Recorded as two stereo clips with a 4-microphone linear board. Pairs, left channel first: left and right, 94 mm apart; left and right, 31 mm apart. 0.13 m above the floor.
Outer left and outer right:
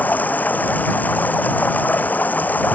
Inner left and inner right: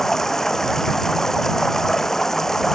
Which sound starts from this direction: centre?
Running water, at 0.0 s.